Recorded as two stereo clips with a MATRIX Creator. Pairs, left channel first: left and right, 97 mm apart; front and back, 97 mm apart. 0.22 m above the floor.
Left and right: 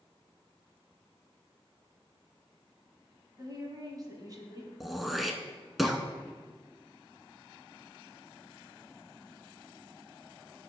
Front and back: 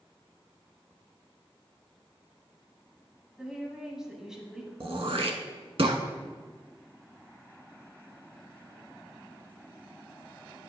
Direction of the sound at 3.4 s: 95° right.